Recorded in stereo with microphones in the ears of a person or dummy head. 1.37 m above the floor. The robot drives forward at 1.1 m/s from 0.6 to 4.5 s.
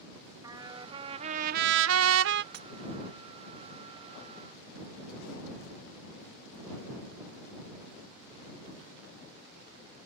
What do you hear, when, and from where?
0.4 s a trumpet: 30° right (ahead or behind); by 2.4 s 50° right (ahead or behind)
2.5 s breaking glass: 65° right (ahead or behind); by 2.7 s 70° right (ahead or behind)